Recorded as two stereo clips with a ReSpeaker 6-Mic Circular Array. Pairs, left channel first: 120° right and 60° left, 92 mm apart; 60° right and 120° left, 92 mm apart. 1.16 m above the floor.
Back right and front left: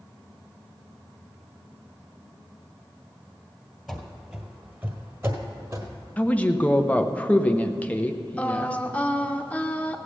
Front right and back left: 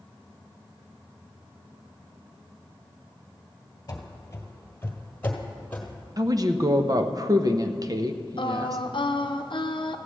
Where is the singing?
45° right, 0.8 m.